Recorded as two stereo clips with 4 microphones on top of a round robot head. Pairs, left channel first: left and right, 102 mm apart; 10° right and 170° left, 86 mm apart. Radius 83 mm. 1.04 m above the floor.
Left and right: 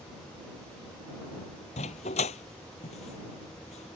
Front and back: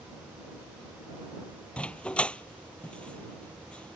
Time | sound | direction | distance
1.8 | a dog barking | 65° left | ?